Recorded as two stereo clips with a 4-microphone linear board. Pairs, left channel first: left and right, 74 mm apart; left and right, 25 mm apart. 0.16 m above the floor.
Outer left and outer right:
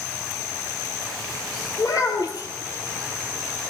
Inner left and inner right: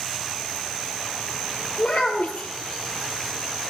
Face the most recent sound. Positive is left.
turn(degrees=65)  # may be behind; listen again after turning